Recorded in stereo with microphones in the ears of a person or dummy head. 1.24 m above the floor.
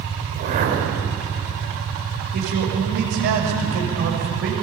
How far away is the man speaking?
About 6.5 m.